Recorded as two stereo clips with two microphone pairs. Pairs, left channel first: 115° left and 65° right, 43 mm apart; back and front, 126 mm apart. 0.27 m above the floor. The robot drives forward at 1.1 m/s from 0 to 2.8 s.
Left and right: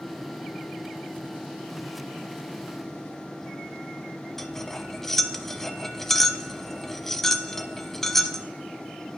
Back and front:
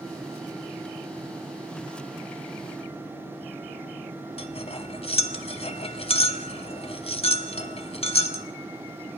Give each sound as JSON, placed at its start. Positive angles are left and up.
{"t": 4.4, "sound": "cutlery clinking", "azimuth_deg": -160, "distance_m": 0.8}